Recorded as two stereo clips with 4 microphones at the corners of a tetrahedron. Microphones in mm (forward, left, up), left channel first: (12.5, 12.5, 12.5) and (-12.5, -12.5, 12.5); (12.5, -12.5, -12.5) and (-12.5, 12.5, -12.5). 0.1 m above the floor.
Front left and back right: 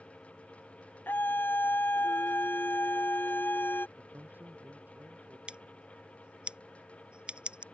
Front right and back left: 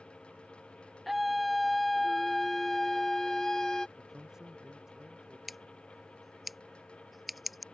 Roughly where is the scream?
Ahead left.